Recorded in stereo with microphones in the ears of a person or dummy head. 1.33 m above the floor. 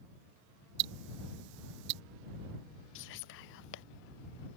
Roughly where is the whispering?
Left.